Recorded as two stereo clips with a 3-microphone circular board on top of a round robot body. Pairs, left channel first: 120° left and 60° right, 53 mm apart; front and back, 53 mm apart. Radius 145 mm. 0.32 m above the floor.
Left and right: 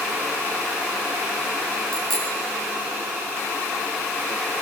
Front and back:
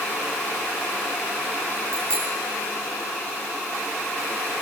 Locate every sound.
1.9 s a bicycle bell: 155° right, 8 m